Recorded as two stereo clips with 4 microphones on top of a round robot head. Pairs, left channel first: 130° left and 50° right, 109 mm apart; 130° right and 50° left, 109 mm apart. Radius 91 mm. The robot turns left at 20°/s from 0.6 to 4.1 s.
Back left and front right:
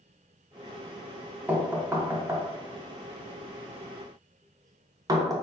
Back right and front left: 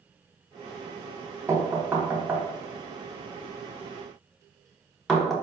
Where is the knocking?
5° left, 0.7 m; by 5.3 s 45° right, 0.7 m.